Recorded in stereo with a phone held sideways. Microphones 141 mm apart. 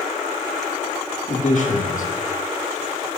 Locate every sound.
1.3 s a man speaking: 60° left (ahead or behind), 1.4 m